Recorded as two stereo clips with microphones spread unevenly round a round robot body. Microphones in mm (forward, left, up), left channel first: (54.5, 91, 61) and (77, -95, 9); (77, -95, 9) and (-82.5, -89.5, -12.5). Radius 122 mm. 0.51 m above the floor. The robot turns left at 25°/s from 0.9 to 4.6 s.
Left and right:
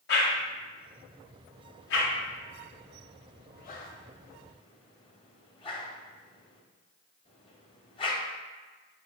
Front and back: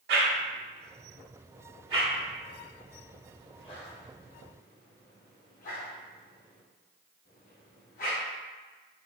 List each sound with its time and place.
0.1 s a whoosh: 130° left, 0.5 m; by 8.2 s 40° left, 0.5 m